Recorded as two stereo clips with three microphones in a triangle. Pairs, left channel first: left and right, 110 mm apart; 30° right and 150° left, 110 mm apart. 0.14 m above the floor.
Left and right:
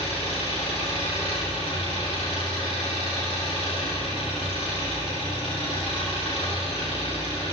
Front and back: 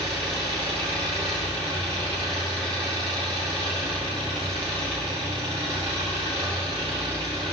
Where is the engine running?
120° left, 4 m.